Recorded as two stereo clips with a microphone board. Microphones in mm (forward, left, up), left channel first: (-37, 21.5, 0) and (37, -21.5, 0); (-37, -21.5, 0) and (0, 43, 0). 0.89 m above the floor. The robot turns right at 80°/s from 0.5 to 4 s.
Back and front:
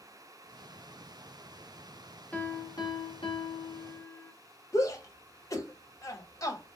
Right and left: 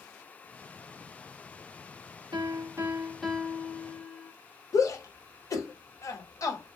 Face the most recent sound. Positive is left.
turn(degrees=-160)